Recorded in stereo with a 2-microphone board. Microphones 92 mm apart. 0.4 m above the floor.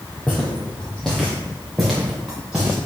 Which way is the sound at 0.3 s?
15° left (ahead or behind).